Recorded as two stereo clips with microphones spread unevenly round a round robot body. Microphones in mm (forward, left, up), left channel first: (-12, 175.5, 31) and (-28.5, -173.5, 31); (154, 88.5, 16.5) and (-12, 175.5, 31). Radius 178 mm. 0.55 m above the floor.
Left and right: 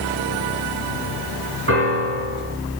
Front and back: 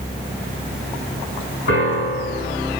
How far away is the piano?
About 5 m.